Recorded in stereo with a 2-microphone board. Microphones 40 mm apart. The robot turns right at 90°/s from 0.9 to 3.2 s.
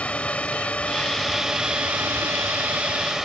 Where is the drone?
140° left; by 3.2 s 15° right.